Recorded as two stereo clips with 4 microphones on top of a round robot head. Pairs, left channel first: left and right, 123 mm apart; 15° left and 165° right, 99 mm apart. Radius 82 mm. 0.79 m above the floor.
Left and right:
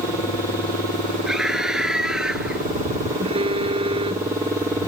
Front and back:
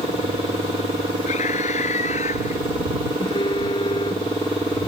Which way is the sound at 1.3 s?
5° right.